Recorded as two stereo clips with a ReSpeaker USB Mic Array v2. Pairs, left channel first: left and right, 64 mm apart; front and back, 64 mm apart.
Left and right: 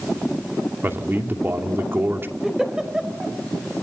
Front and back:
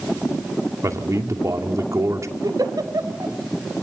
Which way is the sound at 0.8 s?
145° right.